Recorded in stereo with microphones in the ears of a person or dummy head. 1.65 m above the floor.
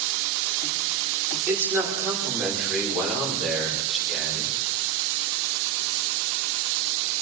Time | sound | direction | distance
1.5 | a man speaking | 10° right (ahead or behind) | 6 m